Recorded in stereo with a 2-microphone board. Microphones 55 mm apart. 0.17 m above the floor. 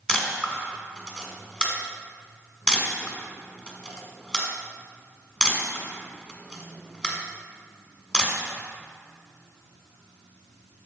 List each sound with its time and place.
0.1 s a camera shutter: 20° left (ahead or behind), 1.6 m